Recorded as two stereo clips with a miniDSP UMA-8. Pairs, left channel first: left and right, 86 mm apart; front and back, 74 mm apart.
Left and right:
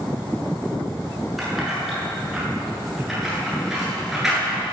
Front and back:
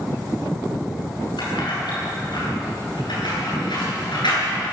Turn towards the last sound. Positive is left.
turn(degrees=0)